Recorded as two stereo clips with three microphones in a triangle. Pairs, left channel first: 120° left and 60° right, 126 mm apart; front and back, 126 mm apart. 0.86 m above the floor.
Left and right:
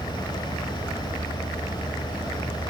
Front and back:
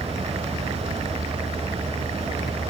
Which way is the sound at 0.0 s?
20° right.